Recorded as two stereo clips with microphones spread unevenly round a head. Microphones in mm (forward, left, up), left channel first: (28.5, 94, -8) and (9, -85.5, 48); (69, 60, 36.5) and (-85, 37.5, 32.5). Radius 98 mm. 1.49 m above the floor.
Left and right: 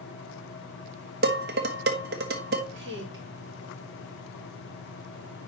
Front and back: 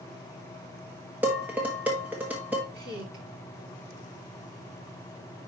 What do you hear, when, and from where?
1.2 s dishes clattering: 90° right, 1.2 m
2.7 s a woman speaking: 130° right, 3 m